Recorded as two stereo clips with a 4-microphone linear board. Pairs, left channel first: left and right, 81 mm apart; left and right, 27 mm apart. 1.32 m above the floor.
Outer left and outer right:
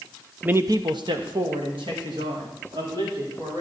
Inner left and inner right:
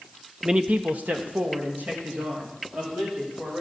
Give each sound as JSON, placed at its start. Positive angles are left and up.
{"t": 0.4, "sound": "a man speaking", "side_deg": -15, "distance_m": 0.6}